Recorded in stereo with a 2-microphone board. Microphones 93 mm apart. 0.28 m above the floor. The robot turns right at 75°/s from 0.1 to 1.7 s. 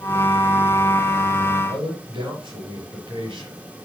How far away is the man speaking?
About 5.5 m.